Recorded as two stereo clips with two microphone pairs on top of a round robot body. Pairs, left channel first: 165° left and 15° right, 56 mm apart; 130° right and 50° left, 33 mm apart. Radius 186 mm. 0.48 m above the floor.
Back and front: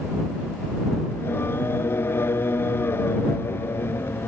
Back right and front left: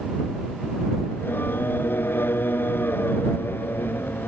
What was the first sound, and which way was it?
Singing, 145° right.